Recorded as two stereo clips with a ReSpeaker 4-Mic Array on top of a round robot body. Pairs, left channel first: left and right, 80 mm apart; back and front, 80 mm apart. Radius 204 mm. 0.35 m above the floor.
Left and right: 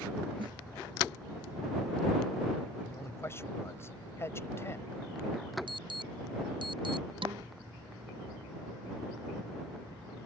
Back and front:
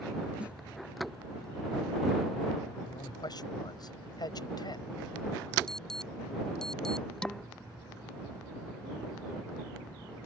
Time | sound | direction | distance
0.4 | a snare drum | 75° right | ?
2.9 | a man speaking | 150° left | ?
5.7 | an alarm | 95° right | ?
7.2 | dishes clattering | 100° right | ?